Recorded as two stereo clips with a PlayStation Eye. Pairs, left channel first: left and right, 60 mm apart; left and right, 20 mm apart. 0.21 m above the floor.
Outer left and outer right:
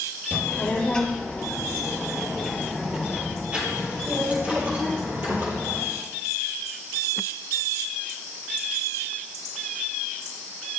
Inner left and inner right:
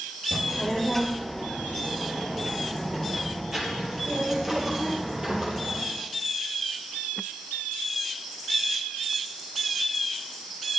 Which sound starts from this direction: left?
A child speaking, at 0.3 s.